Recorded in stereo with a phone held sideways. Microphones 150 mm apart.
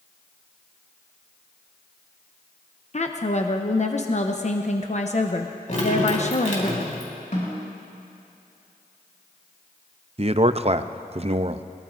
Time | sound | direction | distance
2.9 | a woman speaking | 50° left (ahead or behind) | 0.8 m
5.7 | dripping | 55° left (ahead or behind) | 3.5 m
7.3 | a snare drum | 55° left (ahead or behind) | 6.5 m
10.2 | a man speaking | 40° right (ahead or behind) | 0.5 m